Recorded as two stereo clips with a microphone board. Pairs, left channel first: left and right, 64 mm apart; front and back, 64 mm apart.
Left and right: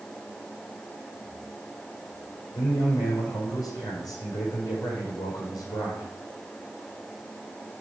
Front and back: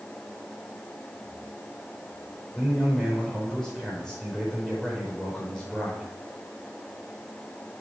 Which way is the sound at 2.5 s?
80° left.